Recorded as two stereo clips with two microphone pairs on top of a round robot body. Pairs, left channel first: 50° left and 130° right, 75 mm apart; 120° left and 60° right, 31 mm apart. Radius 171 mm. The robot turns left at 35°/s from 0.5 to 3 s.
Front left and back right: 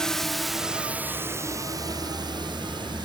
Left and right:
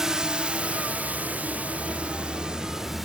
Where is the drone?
20° right; by 3.1 s 145° right.